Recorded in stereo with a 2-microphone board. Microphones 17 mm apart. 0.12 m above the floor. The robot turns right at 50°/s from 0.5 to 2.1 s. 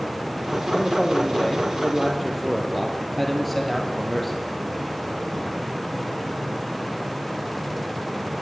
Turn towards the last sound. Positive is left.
turn(degrees=175)